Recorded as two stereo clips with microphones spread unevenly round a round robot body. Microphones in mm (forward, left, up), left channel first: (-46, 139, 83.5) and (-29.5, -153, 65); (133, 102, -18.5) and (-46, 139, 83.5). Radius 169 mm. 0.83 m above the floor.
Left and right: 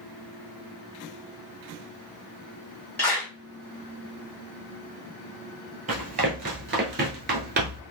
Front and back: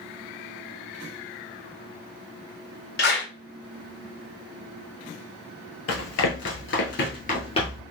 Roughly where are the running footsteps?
Ahead.